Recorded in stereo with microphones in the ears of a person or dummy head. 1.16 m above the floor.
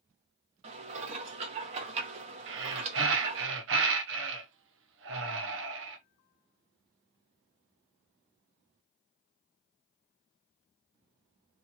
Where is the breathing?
60° right (ahead or behind), 0.8 m.